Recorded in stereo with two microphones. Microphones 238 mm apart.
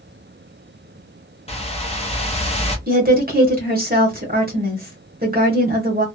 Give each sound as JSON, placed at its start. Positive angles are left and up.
{"t": 1.5, "sound": "a whoosh", "side_deg": 25, "distance_m": 0.8}
{"t": 2.9, "sound": "a woman speaking", "side_deg": -40, "distance_m": 1.2}